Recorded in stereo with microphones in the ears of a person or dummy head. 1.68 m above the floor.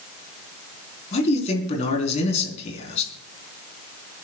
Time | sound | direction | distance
1.1 | a man speaking | 35° left (ahead or behind) | 4.5 m